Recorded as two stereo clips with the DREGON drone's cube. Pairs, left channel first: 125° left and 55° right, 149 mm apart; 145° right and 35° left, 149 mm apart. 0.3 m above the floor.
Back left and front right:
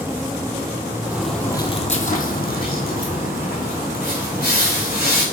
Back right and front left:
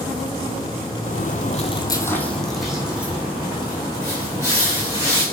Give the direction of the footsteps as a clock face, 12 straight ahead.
4 o'clock.